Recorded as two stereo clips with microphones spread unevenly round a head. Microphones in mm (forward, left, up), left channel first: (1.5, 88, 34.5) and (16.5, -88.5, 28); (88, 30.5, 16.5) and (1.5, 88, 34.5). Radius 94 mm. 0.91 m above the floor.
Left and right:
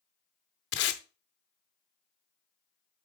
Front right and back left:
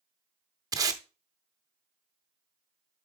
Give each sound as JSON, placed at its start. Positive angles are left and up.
{"t": 0.7, "sound": "tape being pulled", "azimuth_deg": 105, "distance_m": 0.7}